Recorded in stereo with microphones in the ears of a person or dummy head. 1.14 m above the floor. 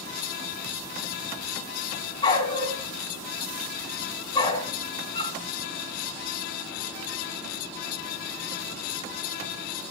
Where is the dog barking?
20° left (ahead or behind), 4 m.